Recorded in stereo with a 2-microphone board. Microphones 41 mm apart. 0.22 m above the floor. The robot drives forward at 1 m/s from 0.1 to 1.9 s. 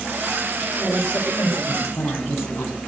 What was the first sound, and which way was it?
A woman speaking, 80° left.